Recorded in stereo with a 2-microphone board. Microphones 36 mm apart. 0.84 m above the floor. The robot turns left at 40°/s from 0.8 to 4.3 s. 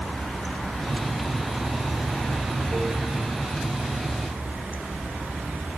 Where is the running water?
15° left, 2 m; by 5.8 s 125° right, 2 m.